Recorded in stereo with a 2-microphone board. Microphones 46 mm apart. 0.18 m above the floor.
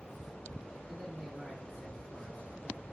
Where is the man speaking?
10° right (ahead or behind), 5 m.